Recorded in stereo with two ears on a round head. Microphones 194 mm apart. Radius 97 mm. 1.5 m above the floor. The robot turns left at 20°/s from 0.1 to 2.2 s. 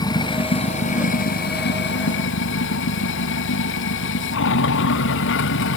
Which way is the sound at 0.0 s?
160° left.